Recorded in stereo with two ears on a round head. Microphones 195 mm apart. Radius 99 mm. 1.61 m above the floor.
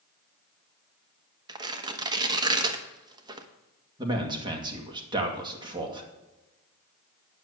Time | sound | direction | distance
1.5 | tearing paper | 20° right (ahead or behind) | 1.1 m
4.0 | a man speaking | 20° right (ahead or behind) | 2.5 m